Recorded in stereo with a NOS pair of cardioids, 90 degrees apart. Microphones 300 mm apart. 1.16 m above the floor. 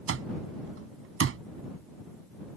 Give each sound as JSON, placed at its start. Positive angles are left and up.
{"t": 0.1, "sound": "an alarm clock", "azimuth_deg": -45}